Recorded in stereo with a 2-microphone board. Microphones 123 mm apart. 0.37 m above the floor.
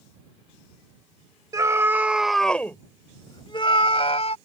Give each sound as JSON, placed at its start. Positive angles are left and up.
{"t": 1.5, "sound": "a scream", "side_deg": -30}